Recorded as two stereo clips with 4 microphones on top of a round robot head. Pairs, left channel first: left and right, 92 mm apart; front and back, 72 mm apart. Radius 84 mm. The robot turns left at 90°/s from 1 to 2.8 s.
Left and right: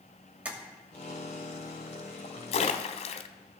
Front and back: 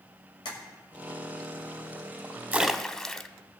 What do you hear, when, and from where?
0.5 s tapping: 15° right, 2 m
2.5 s a splash: 115° left, 0.6 m; by 3.3 s 90° left, 0.6 m